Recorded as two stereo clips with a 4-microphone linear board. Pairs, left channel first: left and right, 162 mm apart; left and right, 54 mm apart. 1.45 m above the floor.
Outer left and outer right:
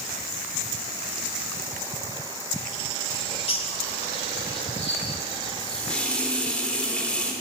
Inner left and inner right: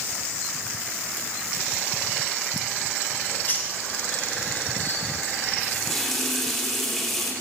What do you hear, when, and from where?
3.1 s a bird: 35° left (ahead or behind), 2.5 m
5.6 s a running tap: 5° left (ahead or behind), 2.5 m